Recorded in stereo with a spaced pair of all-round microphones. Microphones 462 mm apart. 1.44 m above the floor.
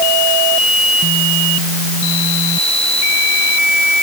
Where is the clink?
I don't hear a clink.